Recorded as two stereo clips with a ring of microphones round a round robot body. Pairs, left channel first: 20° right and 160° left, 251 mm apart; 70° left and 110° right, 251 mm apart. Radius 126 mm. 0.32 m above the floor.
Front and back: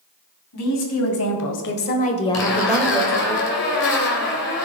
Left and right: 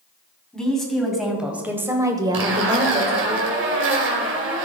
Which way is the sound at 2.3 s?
70° right.